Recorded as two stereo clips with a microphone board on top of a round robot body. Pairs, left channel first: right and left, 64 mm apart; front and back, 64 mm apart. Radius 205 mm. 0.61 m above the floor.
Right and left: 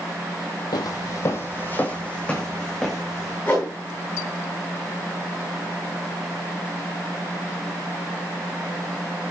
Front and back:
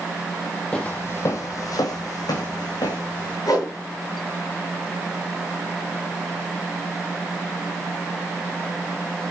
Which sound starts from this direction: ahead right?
A whoosh, at 3.5 s.